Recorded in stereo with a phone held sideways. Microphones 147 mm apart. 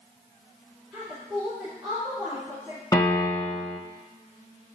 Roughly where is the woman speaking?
Centre.